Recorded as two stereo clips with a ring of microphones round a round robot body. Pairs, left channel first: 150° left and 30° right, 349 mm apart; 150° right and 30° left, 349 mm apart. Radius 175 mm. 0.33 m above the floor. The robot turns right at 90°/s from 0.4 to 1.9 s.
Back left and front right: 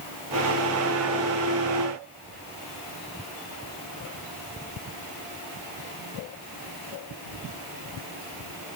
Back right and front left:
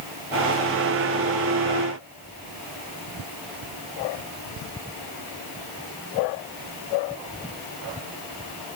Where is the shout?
I don't hear a shout.